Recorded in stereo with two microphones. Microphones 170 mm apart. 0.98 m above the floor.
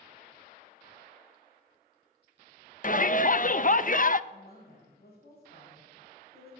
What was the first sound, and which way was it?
A shout, 50° left (ahead or behind).